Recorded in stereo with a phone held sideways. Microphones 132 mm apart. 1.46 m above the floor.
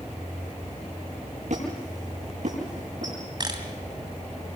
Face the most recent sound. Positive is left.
turn(degrees=-35)  # may be behind; listen again after turning